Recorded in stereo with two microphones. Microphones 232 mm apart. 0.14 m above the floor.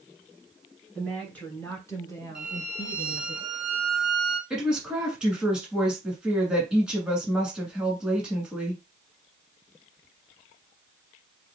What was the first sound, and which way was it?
A woman speaking, 5° left (ahead or behind).